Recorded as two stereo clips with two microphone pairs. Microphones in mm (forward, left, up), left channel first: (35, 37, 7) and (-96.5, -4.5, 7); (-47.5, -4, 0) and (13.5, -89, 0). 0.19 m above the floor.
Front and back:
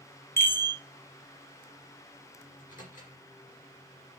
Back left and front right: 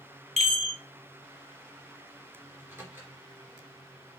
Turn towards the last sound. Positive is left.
turn(degrees=10)